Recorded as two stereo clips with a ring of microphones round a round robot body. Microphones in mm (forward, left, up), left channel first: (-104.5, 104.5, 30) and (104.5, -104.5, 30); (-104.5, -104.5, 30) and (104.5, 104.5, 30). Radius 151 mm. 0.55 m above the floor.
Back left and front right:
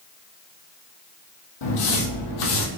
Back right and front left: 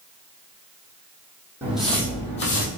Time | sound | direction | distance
1.6 | footsteps | 130° left | 1.6 m